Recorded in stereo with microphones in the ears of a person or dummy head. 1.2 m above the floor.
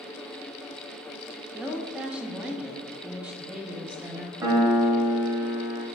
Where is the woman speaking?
5° right (ahead or behind), 0.6 m.